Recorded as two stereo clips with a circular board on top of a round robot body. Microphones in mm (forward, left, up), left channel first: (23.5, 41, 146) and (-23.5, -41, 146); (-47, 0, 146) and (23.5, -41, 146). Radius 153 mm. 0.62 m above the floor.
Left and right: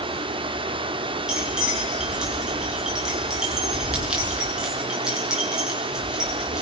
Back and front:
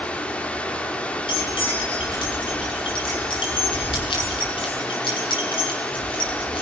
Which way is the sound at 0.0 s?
135° right.